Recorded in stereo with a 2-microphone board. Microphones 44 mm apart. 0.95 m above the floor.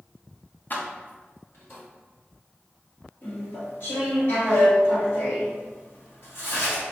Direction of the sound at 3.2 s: 55° left (ahead or behind).